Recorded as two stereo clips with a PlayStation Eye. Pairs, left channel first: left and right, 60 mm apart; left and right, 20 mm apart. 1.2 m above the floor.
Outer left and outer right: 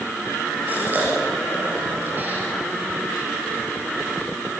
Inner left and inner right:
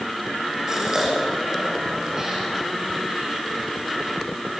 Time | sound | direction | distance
0.7 | a gasp | 30° right (ahead or behind) | 6 m